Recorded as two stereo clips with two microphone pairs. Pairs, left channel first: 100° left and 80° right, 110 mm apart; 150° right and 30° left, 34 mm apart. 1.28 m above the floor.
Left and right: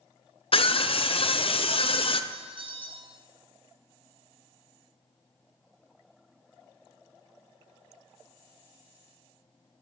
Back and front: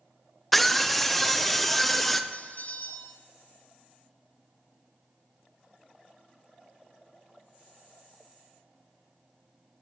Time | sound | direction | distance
0.5 | a scream | 125° left | 0.5 m
2.3 | a bell | 120° right | 0.5 m